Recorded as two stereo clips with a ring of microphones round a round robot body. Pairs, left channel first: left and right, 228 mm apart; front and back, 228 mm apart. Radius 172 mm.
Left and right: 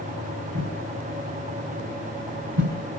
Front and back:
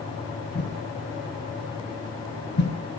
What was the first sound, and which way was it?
A whoosh, 60° right.